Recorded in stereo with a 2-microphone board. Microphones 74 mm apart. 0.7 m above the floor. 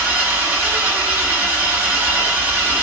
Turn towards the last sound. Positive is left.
turn(degrees=-25)  # may be behind; listen again after turning